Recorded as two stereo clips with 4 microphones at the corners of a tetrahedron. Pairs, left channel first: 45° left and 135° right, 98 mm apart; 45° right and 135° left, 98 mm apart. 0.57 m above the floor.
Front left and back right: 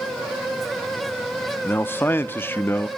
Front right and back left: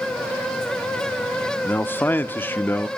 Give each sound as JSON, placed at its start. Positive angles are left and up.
{"t": 1.6, "sound": "a man speaking", "azimuth_deg": 0, "distance_m": 0.7}